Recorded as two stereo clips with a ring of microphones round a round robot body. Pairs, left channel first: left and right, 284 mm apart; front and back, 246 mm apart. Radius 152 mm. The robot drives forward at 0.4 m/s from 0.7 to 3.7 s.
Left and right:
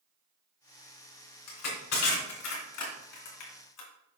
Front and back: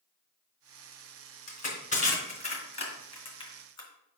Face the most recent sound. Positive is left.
turn(degrees=70)